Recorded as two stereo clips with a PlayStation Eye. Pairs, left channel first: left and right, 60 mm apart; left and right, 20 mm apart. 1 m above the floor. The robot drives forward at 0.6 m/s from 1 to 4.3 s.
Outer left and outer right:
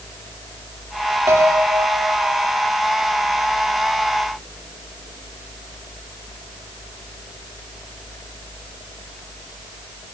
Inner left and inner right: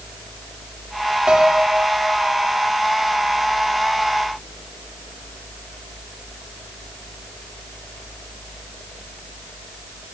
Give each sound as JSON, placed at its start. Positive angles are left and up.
{"t": 1.3, "sound": "a piano", "side_deg": -55, "distance_m": 3.0}